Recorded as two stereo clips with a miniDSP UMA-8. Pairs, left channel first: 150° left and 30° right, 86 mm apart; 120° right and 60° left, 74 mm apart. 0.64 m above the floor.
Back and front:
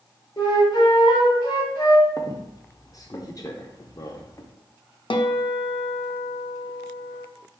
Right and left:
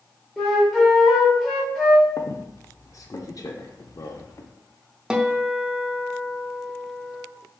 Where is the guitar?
140° left, 0.5 m.